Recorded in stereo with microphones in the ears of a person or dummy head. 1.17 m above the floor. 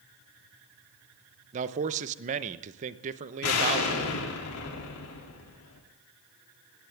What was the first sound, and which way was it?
A man speaking, 35° right (ahead or behind).